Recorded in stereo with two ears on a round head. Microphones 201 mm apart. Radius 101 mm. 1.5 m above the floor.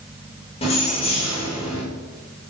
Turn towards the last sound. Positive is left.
turn(degrees=30)  # may be behind; listen again after turning